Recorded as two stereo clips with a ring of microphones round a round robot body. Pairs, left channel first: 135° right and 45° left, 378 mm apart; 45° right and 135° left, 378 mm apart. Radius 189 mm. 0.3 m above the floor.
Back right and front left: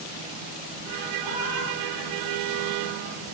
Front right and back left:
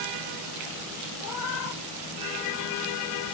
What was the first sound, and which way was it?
A cat meowing, 100° right.